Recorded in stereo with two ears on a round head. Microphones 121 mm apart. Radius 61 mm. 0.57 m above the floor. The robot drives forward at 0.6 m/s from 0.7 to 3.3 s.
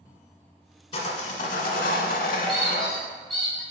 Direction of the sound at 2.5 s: Centre (ahead or behind).